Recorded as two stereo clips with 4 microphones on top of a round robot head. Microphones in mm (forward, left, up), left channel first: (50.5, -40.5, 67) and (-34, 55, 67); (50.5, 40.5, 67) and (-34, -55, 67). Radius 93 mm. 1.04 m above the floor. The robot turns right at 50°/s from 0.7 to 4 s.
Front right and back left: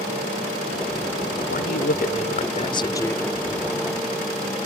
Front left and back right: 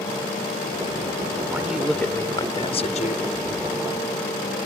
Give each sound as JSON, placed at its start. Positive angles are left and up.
{"t": 1.5, "sound": "a man speaking", "azimuth_deg": -60}